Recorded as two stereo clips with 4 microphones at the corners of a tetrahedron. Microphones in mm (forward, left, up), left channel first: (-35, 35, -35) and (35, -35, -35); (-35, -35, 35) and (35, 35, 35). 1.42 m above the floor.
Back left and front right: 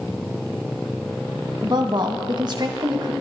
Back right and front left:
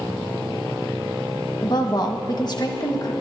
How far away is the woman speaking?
About 1.4 m.